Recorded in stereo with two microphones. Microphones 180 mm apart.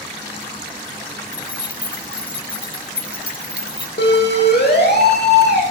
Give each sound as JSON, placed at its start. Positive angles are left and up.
{"t": 1.3, "sound": "keys jangling", "side_deg": -5, "distance_m": 4.0}
{"t": 4.0, "sound": "a siren", "side_deg": 70, "distance_m": 7.5}